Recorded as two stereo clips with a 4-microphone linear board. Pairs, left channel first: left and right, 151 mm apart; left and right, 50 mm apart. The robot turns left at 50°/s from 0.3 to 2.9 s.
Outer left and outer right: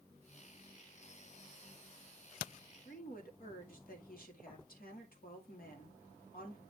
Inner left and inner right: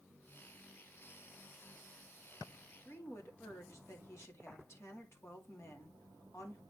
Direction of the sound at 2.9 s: 70° left (ahead or behind).